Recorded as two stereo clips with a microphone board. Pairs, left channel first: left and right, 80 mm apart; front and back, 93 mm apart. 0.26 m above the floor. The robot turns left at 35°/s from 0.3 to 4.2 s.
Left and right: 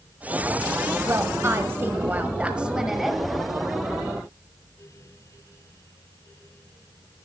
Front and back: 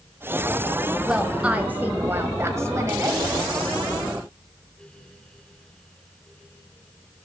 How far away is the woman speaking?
About 1.2 m.